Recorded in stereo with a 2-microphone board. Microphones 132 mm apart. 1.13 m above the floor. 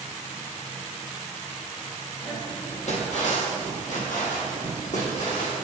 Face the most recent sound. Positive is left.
turn(degrees=75)  # may be behind; listen again after turning